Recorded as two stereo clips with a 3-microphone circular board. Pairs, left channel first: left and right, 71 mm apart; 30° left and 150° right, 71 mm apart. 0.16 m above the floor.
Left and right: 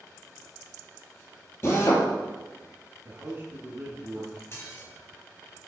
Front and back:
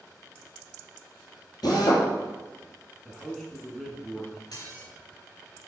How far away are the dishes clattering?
About 2 m.